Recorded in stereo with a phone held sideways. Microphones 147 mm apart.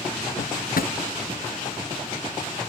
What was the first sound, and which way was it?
A drawer, 80° left.